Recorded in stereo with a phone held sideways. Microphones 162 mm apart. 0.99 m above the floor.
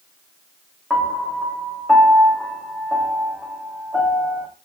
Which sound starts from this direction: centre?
A piano, at 0.9 s.